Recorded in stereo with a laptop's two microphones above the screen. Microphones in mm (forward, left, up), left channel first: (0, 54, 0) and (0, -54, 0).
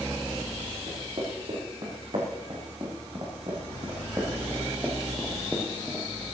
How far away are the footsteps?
About 4.5 m.